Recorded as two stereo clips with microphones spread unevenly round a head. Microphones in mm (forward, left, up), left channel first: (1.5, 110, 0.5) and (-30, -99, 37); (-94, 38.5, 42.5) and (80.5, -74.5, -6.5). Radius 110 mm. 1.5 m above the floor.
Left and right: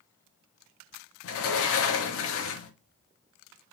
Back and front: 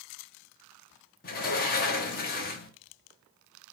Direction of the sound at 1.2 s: 95° left.